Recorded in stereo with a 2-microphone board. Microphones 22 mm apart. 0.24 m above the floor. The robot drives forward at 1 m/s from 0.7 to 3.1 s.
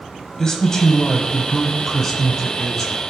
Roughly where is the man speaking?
Left.